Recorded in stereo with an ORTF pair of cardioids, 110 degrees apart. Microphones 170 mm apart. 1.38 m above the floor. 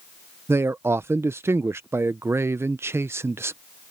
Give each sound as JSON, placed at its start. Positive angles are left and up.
{"t": 0.5, "sound": "a man speaking", "azimuth_deg": -15}